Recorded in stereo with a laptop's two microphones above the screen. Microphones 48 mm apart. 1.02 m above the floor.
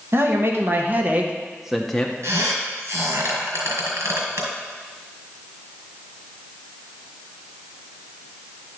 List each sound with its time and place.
0.1 s a man speaking: 55° right (ahead or behind), 1.4 m; by 2.1 s 15° left (ahead or behind), 0.8 m
2.2 s a squeak: 70° right (ahead or behind), 4 m